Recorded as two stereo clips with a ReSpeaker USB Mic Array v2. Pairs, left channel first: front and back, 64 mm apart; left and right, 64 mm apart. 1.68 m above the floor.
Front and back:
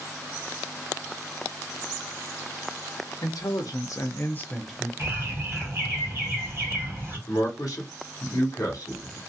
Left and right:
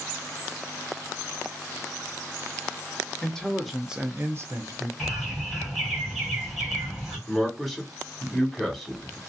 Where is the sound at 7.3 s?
Straight ahead, 1.3 m.